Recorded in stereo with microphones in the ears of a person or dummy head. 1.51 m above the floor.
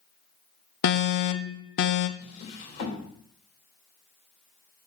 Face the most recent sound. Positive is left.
turn(degrees=55)  # may be behind; listen again after turning